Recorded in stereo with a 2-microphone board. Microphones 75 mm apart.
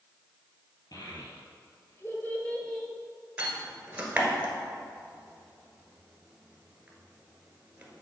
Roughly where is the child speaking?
Left.